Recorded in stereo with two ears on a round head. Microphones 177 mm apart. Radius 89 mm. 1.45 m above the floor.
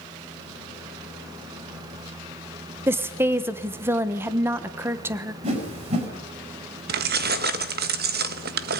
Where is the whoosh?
35° right (ahead or behind), 5.5 m.